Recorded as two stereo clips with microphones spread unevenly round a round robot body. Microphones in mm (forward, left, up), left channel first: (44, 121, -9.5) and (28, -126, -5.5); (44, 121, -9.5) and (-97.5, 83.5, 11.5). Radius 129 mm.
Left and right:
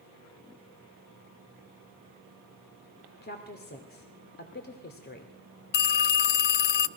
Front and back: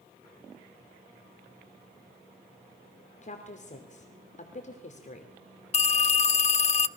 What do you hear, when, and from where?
3.2 s a woman speaking: 40° left, 2.5 m
5.7 s a phone ringing: 45° left, 0.7 m